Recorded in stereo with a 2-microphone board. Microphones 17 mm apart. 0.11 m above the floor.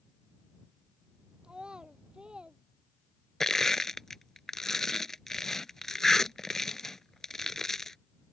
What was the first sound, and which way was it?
A child speaking, 70° right (ahead or behind).